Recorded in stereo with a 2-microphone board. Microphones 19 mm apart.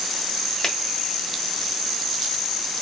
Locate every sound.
0.6 s a finger snap: 25° left (ahead or behind), 1.4 m